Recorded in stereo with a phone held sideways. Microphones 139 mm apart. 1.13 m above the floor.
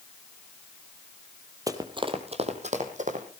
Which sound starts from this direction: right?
Running footsteps, at 1.7 s.